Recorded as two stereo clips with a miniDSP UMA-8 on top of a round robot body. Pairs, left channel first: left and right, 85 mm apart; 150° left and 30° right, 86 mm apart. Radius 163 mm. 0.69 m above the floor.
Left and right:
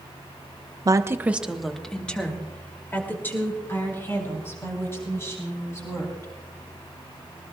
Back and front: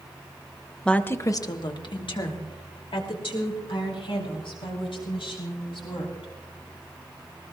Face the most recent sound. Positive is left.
turn(degrees=145)